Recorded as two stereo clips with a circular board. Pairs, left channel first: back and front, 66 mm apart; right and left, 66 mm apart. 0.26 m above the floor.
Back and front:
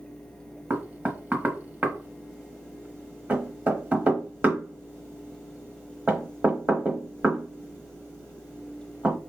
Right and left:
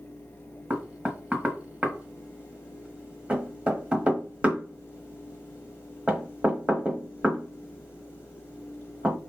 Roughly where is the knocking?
Ahead left.